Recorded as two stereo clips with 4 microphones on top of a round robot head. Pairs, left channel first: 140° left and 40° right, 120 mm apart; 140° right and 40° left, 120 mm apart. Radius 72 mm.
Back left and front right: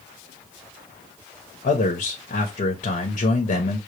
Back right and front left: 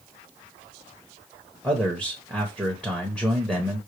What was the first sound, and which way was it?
A man speaking, 115° left.